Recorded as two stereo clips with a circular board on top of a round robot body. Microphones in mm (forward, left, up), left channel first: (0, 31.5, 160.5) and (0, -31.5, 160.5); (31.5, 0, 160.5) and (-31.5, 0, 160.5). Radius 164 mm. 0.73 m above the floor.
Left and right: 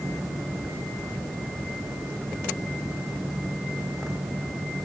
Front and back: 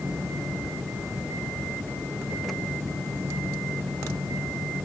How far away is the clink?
I don't hear a clink.